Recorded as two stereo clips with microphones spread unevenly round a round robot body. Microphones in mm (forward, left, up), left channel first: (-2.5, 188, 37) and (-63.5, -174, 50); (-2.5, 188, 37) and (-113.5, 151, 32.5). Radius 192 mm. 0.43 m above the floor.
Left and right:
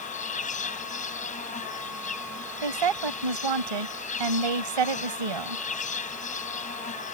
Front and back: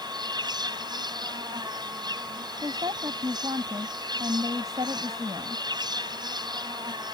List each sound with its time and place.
0.0 s an insect: 150° left
2.6 s a woman speaking: 90° right